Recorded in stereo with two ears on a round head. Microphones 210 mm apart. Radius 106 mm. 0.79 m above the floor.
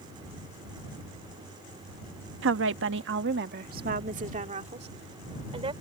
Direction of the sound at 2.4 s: 55° right (ahead or behind).